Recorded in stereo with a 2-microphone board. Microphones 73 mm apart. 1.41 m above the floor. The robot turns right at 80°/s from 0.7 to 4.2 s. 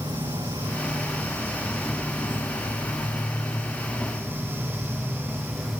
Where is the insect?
95° right, 3.5 m; by 5.8 s 175° right, 3.5 m.